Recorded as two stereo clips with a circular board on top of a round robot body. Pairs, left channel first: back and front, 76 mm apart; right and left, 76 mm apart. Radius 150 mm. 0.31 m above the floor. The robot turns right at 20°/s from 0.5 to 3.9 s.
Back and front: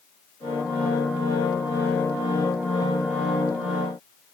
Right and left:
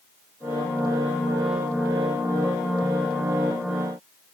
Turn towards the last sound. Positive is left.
No sound to turn to.